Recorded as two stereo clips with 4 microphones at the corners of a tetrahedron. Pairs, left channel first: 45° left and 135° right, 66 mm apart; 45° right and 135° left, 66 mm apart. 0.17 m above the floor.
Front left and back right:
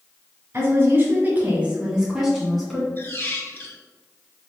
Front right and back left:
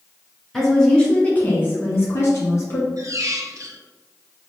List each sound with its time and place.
0.5 s a woman speaking: 130° right, 1.4 m; by 2.9 s 35° right, 1.7 m
3.0 s a squeak: 100° left, 0.6 m